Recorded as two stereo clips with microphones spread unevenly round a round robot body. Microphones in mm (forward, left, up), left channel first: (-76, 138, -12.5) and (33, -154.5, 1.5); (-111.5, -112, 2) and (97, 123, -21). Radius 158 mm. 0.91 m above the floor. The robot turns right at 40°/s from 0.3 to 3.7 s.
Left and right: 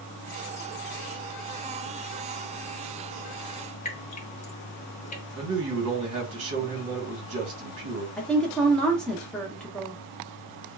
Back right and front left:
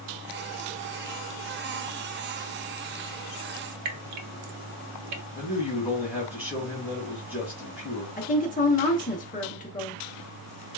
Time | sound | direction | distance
3.9 | dripping | 45° left | 0.6 m
5.3 | a man speaking | 35° right | 1.3 m
8.2 | a woman speaking | 170° right | 0.7 m